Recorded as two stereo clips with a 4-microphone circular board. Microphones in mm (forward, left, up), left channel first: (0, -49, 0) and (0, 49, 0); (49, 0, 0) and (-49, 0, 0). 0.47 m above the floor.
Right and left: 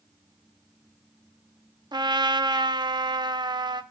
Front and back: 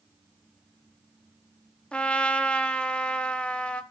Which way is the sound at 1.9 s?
75° left.